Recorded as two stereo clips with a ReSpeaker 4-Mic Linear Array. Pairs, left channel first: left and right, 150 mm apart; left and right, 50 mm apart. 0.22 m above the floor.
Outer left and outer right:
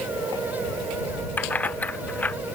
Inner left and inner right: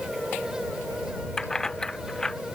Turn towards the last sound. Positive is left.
turn(degrees=10)  # may be behind; listen again after turning